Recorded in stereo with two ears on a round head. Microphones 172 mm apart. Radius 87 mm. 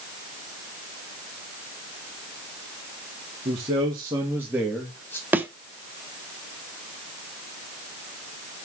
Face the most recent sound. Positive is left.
turn(degrees=-10)  # may be behind; listen again after turning